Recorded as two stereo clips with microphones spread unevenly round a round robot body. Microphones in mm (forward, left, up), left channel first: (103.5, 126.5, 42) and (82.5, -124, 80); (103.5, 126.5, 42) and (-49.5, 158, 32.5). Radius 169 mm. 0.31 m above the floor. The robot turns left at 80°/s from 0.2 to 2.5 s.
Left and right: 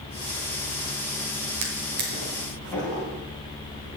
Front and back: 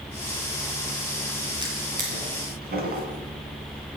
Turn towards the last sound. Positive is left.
turn(degrees=170)